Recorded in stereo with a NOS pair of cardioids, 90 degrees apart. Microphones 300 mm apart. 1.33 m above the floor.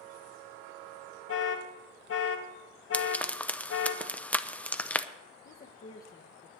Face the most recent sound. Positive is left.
turn(degrees=30)